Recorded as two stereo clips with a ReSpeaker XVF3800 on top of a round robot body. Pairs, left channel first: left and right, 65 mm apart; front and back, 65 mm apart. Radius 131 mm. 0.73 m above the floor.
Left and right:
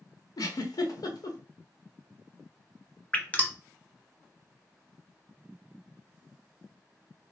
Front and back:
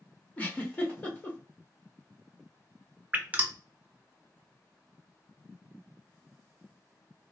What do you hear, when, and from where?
0.4 s a giggle: 70° left, 1.1 m
3.1 s dripping: 135° left, 1.0 m